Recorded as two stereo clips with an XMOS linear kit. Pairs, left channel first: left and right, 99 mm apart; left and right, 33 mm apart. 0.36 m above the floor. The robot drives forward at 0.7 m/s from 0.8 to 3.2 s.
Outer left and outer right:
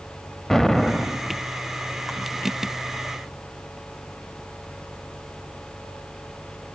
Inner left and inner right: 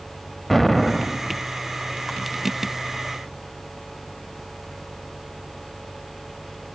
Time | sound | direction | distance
0.5 | an explosion | 5° left (ahead or behind) | 0.5 m